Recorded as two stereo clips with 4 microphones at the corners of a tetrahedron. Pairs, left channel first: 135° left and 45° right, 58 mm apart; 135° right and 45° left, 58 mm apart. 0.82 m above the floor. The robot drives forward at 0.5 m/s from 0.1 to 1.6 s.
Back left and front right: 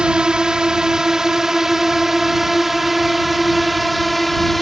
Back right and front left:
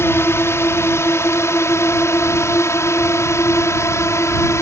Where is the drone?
115° right; by 4.6 s 135° right.